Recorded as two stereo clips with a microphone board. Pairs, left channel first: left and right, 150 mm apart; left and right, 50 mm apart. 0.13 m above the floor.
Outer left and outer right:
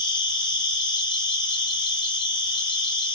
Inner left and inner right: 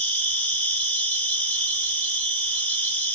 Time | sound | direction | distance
0.0 | an insect | 30° left (ahead or behind) | 1.0 m